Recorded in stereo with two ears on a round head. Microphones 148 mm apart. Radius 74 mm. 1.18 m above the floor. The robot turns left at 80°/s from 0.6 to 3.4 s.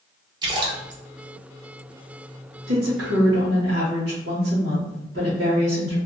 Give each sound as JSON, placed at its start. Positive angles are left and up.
{"t": 0.4, "sound": "a splash", "side_deg": -25, "distance_m": 0.8}
{"t": 2.7, "sound": "a woman speaking", "azimuth_deg": -55, "distance_m": 1.8}